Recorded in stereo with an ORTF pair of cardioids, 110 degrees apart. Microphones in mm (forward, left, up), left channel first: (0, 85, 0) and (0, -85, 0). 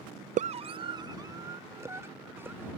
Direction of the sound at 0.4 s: 50° right.